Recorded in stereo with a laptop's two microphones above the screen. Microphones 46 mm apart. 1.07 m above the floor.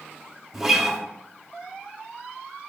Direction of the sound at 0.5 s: 5° right (ahead or behind).